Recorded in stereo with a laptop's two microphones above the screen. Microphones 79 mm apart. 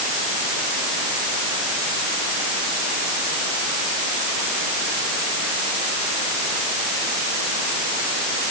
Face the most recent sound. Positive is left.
No sound to turn to.